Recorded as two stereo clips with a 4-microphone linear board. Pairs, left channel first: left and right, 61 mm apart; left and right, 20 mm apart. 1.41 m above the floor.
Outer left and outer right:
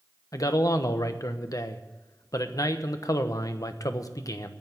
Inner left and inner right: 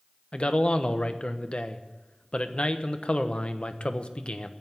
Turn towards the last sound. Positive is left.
turn(degrees=65)  # may be behind; listen again after turning